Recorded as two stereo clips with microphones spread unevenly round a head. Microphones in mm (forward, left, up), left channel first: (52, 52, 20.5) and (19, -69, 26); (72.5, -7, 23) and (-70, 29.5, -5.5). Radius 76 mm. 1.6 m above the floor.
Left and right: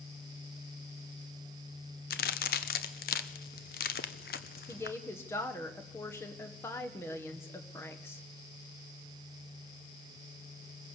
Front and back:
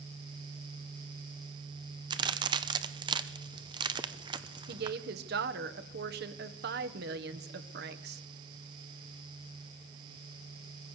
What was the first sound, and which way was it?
A crack, 100° left.